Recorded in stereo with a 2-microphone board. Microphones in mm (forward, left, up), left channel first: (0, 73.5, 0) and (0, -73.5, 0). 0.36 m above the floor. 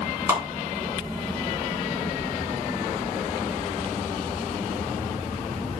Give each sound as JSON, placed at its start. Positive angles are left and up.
{"t": 0.3, "sound": "a clap", "side_deg": -20, "distance_m": 3.0}